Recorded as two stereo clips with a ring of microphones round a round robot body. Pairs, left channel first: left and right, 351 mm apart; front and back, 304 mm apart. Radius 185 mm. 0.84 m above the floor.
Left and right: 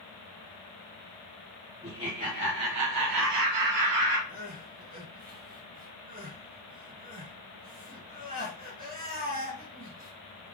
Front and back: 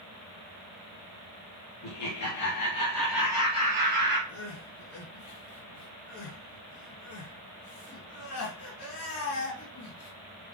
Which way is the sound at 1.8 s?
5° right.